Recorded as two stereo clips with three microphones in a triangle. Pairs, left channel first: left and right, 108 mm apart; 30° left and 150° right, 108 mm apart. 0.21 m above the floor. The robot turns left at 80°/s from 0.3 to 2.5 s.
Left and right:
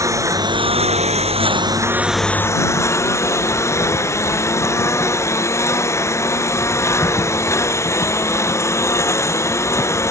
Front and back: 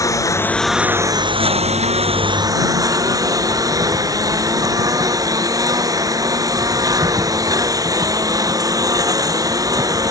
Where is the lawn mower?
30° right; by 10.1 s 155° left.